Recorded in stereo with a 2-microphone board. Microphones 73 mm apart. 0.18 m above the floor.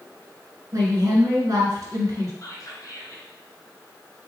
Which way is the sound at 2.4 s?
50° left (ahead or behind).